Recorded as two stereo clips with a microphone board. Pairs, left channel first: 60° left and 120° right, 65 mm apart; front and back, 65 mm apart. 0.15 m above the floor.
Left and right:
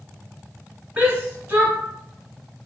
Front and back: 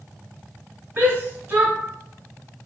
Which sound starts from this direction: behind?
A shout, at 1.0 s.